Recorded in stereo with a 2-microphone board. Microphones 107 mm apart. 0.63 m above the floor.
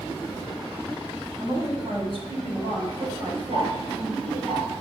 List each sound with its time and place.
1.4 s a woman speaking: 45° right (ahead or behind), 5.5 m; by 4.5 s 65° right (ahead or behind), 3.5 m
3.5 s ticking: 75° right (ahead or behind), 6 m